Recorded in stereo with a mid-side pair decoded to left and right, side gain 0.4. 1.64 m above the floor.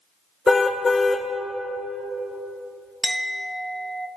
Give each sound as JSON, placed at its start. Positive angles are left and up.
{"t": 0.5, "sound": "a car horn", "azimuth_deg": 30, "distance_m": 3.0}
{"t": 3.0, "sound": "a clink", "azimuth_deg": -10, "distance_m": 1.7}